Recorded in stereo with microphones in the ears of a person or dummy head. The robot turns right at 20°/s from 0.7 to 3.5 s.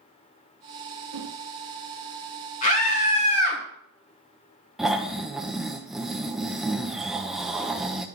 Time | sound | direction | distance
1.1 | a whoosh | 80° right | 0.9 m
2.6 | a scream | 45° left (ahead or behind) | 3 m
4.8 | snoring | centre (ahead or behind) | 0.7 m